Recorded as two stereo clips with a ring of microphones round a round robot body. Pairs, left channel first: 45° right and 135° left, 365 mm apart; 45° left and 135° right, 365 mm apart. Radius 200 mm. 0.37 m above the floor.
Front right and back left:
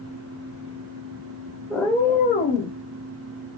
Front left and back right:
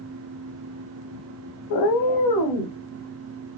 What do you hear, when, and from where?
1.7 s a cat meowing: 45° left, 0.6 m; by 2.8 s 20° left, 1.1 m